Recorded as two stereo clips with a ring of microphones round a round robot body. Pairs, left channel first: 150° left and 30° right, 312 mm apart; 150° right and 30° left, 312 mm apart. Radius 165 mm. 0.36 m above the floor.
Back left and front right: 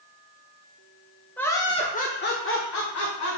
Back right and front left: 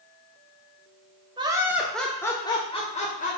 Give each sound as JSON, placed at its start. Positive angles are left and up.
{"t": 1.4, "sound": "laughter", "azimuth_deg": 75, "distance_m": 1.0}